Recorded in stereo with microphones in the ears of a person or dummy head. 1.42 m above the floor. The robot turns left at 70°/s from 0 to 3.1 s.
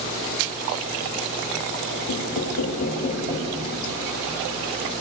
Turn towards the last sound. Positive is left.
turn(degrees=40)